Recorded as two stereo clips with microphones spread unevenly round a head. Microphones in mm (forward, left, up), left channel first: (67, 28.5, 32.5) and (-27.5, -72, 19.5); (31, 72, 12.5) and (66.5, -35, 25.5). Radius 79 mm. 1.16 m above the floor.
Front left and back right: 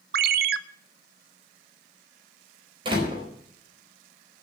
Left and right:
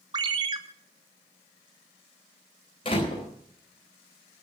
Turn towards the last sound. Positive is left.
turn(degrees=165)